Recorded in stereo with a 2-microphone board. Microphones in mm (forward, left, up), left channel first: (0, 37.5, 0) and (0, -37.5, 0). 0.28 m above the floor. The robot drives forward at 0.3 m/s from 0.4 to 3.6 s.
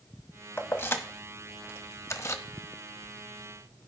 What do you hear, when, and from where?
0.6 s keys jangling: 30° left (ahead or behind), 1.0 m; by 2.4 s 40° left (ahead or behind), 0.8 m